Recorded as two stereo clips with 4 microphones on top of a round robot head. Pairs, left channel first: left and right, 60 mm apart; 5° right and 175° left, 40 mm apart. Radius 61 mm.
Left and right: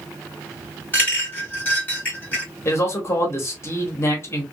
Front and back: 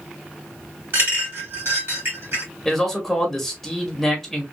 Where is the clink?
150° left, 2.5 m.